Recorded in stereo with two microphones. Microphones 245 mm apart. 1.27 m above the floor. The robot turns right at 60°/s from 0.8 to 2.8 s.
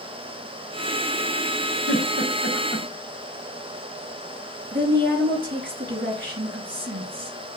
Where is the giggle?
45° left (ahead or behind), 2.5 m; by 2.9 s 10° right (ahead or behind), 2.5 m.